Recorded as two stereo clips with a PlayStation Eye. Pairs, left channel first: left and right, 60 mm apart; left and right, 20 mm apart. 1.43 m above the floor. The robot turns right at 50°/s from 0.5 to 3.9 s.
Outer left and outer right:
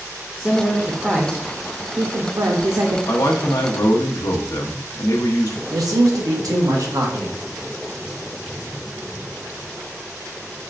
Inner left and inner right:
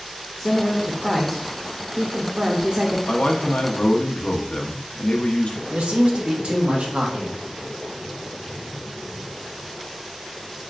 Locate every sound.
0.4 s a woman speaking: 160° left, 0.6 m; by 3.0 s 75° right, 0.6 m
3.1 s a man speaking: 65° left, 0.7 m; by 5.6 s 105° left, 0.7 m
5.7 s a man speaking: 80° right, 1.0 m